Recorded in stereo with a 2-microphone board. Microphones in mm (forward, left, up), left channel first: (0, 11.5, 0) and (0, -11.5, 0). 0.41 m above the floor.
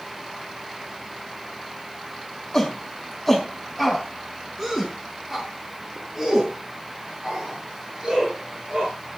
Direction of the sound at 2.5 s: 30° left (ahead or behind).